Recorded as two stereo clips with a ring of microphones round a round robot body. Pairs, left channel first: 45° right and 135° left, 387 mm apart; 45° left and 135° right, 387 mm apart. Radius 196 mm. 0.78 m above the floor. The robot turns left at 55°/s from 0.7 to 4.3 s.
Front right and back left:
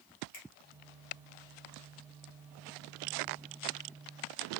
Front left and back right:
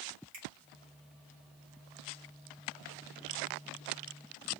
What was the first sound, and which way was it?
A finger snap, 85° right.